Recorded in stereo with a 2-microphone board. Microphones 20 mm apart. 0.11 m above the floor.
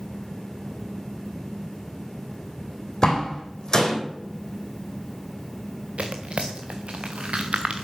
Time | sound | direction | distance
3.0 | a door slam | 35° left (ahead or behind) | 4 m
6.0 | tearing paper | 65° right (ahead or behind) | 1.8 m